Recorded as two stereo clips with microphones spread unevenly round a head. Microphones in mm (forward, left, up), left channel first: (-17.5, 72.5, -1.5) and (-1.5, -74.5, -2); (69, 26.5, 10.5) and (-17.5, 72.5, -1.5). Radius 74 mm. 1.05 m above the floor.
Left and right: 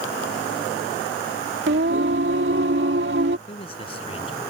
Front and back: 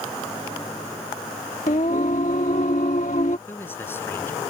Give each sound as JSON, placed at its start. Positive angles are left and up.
{"t": 1.7, "sound": "singing", "azimuth_deg": -65}
{"t": 3.5, "sound": "a man speaking", "azimuth_deg": 40}